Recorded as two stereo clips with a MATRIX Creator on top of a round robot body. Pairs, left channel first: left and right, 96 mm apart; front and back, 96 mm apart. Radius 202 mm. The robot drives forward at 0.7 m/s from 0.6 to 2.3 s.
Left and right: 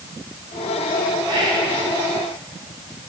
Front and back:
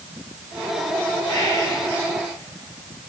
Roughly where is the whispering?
Ahead right.